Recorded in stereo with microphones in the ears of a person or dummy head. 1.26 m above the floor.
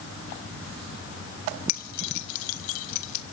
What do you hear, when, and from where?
1.7 s keys jangling: 45° left (ahead or behind), 0.7 m; by 3.2 s 75° left (ahead or behind), 1.9 m